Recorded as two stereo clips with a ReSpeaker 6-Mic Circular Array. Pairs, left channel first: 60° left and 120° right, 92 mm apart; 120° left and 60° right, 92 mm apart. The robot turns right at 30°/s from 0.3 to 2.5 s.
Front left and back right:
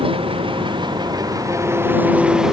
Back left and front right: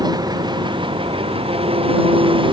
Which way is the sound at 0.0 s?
100° right.